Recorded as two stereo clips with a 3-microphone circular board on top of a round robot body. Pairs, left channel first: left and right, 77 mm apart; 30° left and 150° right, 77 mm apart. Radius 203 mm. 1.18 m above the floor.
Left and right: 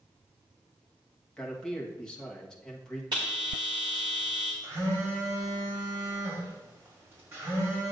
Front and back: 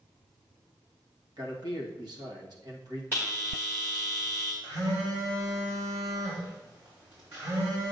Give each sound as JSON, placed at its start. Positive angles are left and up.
{"t": 1.4, "sound": "a man speaking", "azimuth_deg": 170, "distance_m": 1.5}
{"t": 3.1, "sound": "a bell", "azimuth_deg": -95, "distance_m": 0.9}
{"t": 4.6, "sound": "a phone buzzing", "azimuth_deg": -145, "distance_m": 4.0}